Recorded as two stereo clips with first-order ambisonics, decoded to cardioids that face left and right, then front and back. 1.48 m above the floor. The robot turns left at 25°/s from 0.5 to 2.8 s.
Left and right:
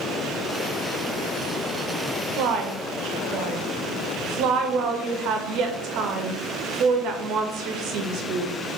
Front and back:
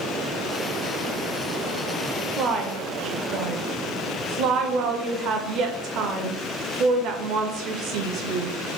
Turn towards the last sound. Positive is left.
turn(degrees=-135)